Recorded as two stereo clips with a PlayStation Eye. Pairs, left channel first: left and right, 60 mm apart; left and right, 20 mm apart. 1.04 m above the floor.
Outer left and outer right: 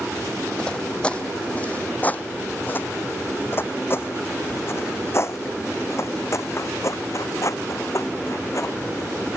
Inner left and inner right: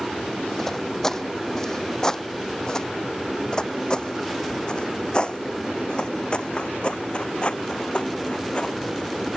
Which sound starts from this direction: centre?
Footsteps, at 0.6 s.